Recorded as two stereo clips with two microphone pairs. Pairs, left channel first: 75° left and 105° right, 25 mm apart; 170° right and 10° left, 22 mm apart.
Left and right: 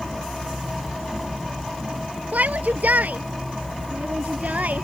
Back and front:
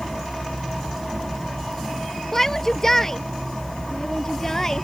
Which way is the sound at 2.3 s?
95° right.